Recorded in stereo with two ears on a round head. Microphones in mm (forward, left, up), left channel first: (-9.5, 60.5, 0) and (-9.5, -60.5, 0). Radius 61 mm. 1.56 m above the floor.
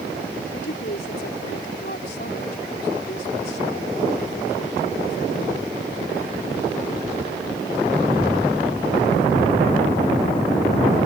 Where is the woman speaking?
70° left (ahead or behind).